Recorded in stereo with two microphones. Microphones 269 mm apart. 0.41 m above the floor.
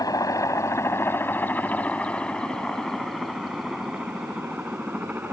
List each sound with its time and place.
0.0 s a helicopter: 15° left (ahead or behind); by 5.3 s 5° right (ahead or behind)